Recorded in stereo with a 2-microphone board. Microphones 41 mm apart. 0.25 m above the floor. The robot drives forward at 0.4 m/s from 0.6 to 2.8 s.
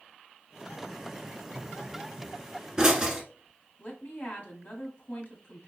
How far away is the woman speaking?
About 1.3 m.